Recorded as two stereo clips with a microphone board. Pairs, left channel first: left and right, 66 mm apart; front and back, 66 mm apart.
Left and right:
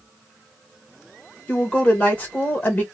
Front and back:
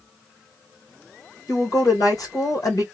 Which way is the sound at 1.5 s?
25° left.